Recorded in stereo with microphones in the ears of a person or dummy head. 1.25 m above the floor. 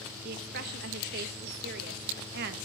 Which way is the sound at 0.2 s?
55° right (ahead or behind).